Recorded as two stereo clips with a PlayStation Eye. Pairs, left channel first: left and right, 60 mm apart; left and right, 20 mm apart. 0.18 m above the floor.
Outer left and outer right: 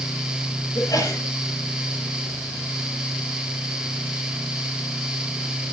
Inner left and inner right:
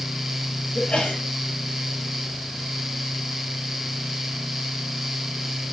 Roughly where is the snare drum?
I don't hear a snare drum.